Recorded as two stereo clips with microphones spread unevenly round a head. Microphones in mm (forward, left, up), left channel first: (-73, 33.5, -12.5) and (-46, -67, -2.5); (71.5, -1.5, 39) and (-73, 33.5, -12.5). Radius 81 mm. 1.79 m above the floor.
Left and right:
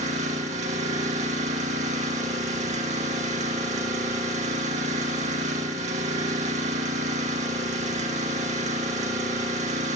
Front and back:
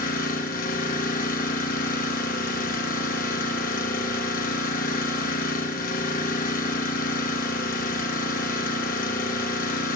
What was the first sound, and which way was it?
An engine running, 50° right.